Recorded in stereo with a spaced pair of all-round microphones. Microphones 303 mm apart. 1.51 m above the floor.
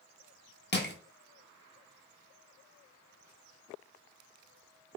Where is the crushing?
35° left (ahead or behind), 0.8 m.